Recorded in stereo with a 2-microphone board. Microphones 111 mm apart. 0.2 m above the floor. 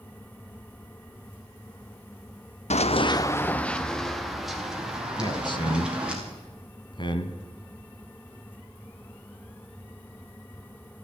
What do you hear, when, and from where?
2.7 s running footsteps: 80° left, 0.7 m; by 6.2 s 10° right (ahead or behind), 5 m
5.2 s a man speaking: 45° left (ahead or behind), 1.4 m